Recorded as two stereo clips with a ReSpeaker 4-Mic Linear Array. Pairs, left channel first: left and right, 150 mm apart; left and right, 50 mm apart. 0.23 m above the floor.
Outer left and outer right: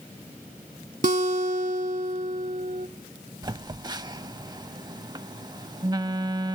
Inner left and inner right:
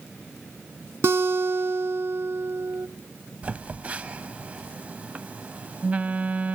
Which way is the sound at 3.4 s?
30° right (ahead or behind).